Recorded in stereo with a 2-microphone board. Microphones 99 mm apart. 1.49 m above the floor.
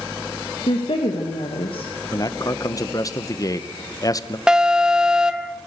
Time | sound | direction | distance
0.7 | a woman speaking | 60° left (ahead or behind) | 1.9 m
2.1 | a man speaking | 35° left (ahead or behind) | 0.9 m
4.5 | an alarm | 10° right (ahead or behind) | 1.0 m